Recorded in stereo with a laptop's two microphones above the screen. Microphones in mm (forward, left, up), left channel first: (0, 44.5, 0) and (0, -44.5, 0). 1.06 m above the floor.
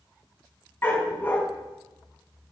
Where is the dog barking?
25° left (ahead or behind), 2.5 m.